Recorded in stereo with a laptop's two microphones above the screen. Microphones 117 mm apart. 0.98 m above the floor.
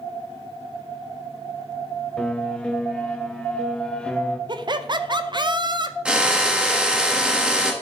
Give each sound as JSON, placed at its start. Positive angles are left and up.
{"t": 2.2, "sound": "a piano", "side_deg": 10, "distance_m": 0.9}
{"t": 4.5, "sound": "laughter", "side_deg": -40, "distance_m": 0.6}
{"t": 6.0, "sound": "a drill", "side_deg": -10, "distance_m": 0.9}